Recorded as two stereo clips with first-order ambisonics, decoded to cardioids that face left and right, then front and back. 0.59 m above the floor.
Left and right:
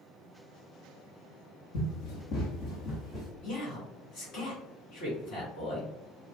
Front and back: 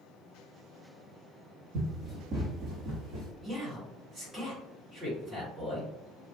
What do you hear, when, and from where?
1.7 s running footsteps: 105° left, 1.5 m; by 3.3 s 150° left, 1.6 m
3.4 s a man speaking: 110° left, 1.8 m